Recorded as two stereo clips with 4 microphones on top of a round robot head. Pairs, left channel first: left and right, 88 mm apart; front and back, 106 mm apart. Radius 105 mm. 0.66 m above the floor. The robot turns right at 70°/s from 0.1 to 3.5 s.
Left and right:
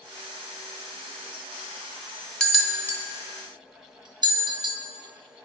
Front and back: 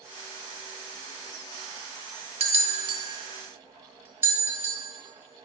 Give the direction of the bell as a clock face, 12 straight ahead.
6 o'clock.